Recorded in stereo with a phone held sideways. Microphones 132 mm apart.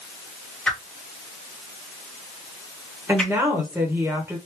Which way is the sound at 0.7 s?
5° left (ahead or behind).